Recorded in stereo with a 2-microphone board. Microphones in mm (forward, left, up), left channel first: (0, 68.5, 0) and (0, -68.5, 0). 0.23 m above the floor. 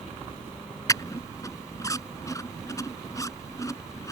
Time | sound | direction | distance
0.9 | a squeak | 25° left (ahead or behind) | ?